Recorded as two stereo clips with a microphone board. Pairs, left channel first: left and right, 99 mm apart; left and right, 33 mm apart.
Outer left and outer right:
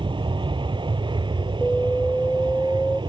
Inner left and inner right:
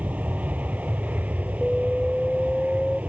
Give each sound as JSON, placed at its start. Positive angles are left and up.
{"t": 0.0, "sound": "an aircraft", "side_deg": -55}
{"t": 1.6, "sound": "an alarm", "side_deg": 5}